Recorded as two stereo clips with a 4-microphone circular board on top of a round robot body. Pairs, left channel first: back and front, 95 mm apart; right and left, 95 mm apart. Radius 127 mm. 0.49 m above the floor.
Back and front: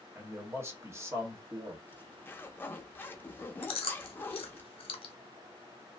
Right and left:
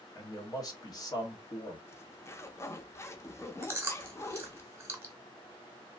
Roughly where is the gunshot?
No gunshot in this recording.